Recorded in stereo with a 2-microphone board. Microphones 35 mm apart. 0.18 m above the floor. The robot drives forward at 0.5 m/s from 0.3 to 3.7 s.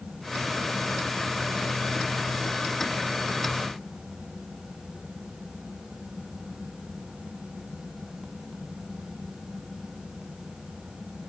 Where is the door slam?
No door slam in this recording.